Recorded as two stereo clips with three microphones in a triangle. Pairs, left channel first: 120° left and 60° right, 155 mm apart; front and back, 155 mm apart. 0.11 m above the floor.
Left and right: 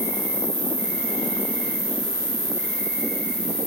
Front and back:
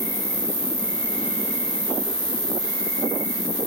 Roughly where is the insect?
Ahead left.